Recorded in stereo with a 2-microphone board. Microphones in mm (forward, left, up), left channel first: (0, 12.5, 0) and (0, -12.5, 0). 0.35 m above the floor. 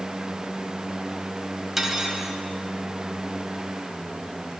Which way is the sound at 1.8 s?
10° right (ahead or behind).